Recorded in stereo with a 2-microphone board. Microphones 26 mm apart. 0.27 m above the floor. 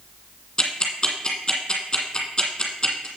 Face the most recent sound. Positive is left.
turn(degrees=30)  # may be behind; listen again after turning